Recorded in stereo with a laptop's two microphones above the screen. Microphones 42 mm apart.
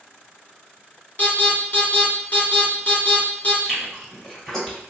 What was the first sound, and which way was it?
An alarm, 35° left (ahead or behind).